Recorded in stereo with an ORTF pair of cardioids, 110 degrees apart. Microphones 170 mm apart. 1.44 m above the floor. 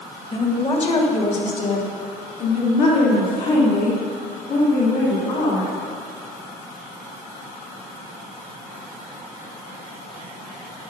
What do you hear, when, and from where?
0.3 s a woman speaking: 35° left, 2 m; by 5.7 s 70° left, 5.5 m